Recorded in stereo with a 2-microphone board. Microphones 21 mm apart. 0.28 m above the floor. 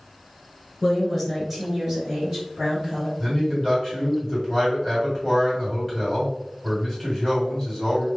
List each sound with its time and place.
0.8 s a woman speaking: 10° left (ahead or behind), 1.3 m; by 3.1 s 30° right (ahead or behind), 1.6 m
3.2 s a man speaking: 5° left (ahead or behind), 1.9 m